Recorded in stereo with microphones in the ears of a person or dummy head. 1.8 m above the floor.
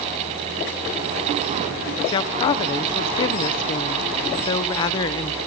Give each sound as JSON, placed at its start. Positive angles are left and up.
{"t": 2.1, "sound": "a woman speaking", "side_deg": 40, "distance_m": 0.9}